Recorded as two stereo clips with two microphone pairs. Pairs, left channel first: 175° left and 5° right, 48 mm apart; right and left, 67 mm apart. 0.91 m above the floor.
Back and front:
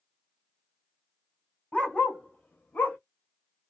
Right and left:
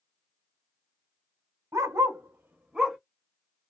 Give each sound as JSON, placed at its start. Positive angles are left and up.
{"t": 1.7, "sound": "a dog barking", "azimuth_deg": 115, "distance_m": 1.1}